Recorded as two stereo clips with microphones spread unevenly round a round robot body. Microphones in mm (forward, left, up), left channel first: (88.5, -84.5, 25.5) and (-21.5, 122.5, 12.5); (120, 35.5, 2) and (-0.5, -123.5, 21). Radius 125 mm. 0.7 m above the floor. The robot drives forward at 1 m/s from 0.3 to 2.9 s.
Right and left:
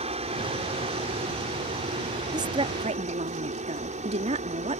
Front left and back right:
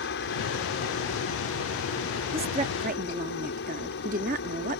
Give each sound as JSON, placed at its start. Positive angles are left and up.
{"t": 0.0, "sound": "a helicopter", "azimuth_deg": 60}
{"t": 2.3, "sound": "a woman speaking", "azimuth_deg": 175}